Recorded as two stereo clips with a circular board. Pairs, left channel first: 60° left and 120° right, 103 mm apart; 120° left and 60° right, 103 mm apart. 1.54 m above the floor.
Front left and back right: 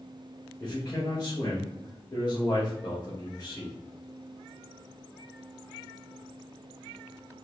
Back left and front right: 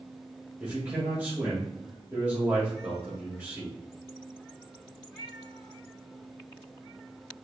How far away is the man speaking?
About 1.6 m.